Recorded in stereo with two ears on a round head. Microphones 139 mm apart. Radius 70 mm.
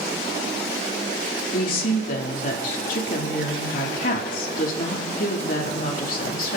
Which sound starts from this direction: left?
A woman speaking, at 1.5 s.